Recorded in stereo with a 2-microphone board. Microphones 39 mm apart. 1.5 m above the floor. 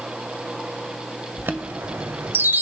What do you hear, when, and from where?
1.4 s a chime: 60° right (ahead or behind), 0.9 m